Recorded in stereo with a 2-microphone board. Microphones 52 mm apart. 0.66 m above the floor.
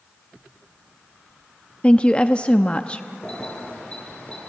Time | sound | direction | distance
1.8 | a woman speaking | 25° left (ahead or behind) | 0.6 m
3.2 | keys jangling | 20° left (ahead or behind) | 7 m